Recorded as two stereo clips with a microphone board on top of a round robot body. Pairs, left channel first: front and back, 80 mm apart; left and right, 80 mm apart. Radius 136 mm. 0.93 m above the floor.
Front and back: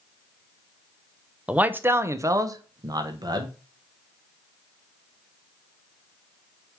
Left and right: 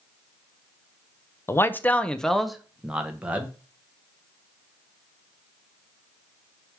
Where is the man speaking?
115° left, 0.9 m; by 3.6 s 160° right, 1.5 m.